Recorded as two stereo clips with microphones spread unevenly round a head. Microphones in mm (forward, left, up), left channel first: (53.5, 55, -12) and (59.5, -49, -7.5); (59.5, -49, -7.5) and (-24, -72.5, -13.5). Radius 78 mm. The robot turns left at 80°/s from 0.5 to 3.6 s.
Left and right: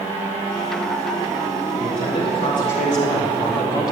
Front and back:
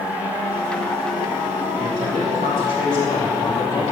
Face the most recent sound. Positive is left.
turn(degrees=45)